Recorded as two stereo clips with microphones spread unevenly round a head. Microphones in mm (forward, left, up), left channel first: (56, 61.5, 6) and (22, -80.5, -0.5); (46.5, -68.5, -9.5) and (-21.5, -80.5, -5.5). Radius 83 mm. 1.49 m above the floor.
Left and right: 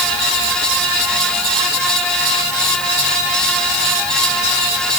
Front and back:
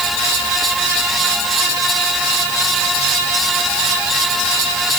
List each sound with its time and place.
Only background noise.